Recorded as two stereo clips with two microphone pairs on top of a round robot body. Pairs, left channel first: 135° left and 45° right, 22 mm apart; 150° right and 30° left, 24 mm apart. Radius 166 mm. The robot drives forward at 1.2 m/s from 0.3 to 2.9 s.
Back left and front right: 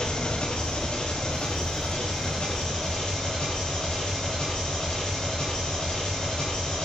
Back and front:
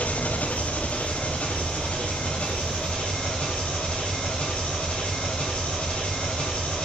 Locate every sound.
0.0 s an engine running: 175° right, 0.8 m; by 6.9 s straight behind, 4 m